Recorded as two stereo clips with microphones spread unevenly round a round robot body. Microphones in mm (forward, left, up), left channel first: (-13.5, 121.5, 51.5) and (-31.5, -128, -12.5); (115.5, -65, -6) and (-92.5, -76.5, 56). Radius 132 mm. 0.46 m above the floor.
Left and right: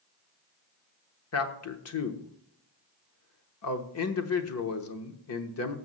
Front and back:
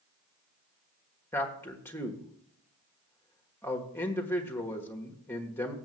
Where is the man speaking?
60° left, 1.2 m.